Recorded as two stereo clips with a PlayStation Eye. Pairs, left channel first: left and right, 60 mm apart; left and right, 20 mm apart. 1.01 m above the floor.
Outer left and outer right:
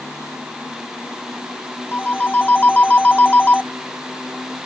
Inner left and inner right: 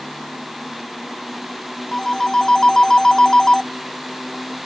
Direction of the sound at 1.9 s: 25° left (ahead or behind).